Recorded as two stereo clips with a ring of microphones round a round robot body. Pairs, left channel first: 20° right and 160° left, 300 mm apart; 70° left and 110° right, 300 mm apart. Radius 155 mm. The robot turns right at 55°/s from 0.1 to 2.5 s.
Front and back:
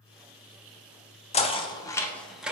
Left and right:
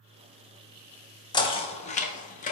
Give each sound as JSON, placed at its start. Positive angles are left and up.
{"t": 1.3, "sound": "knocking", "azimuth_deg": 10, "distance_m": 0.5}